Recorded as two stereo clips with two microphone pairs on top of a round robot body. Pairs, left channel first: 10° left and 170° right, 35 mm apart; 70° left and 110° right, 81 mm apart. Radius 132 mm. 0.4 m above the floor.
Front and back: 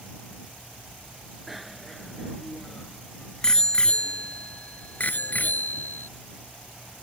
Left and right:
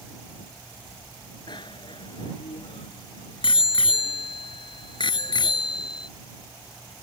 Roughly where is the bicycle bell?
Left.